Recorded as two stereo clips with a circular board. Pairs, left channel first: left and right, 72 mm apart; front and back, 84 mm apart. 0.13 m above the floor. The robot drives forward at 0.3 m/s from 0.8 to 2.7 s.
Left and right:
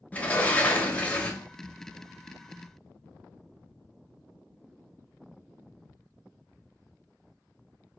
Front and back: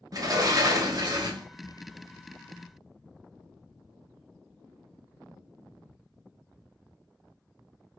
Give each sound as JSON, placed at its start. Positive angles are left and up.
{"t": 0.1, "sound": "a sliding door", "azimuth_deg": 150, "distance_m": 0.8}